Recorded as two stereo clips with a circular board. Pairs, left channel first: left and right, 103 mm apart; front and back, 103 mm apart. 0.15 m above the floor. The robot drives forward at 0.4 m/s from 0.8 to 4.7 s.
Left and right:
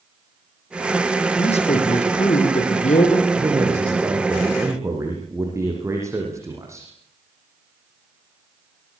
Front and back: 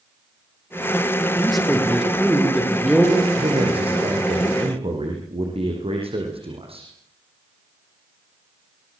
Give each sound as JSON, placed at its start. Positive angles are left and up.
{"t": 1.4, "sound": "a man speaking", "azimuth_deg": 90, "distance_m": 7.5}
{"t": 3.4, "sound": "a man speaking", "azimuth_deg": -150, "distance_m": 8.0}